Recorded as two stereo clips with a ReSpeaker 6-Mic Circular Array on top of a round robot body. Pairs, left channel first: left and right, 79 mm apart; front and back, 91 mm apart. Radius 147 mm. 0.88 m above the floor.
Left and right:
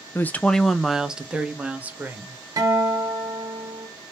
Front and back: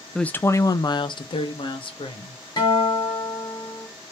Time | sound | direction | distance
0.1 | a woman speaking | 75° left | 0.6 m
2.6 | a guitar | 45° right | 1.8 m